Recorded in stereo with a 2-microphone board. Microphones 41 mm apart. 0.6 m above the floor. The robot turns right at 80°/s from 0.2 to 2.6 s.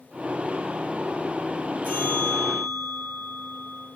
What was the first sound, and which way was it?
A bell, 130° left.